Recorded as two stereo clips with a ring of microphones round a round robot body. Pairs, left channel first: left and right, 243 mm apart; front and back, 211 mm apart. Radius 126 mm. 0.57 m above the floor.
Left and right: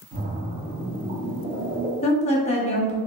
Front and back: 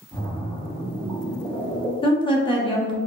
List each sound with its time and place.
0.1 s a splash: 70° right, 0.9 m
2.0 s a woman speaking: 50° left, 0.9 m